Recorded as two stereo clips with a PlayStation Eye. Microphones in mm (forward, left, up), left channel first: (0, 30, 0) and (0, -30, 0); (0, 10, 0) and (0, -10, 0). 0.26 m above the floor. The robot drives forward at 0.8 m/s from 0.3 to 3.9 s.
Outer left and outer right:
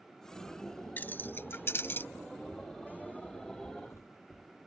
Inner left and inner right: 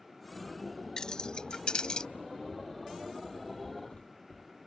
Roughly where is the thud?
Left.